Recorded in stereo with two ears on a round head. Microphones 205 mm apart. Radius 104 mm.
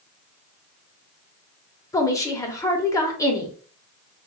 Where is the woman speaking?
15° left (ahead or behind), 0.6 m.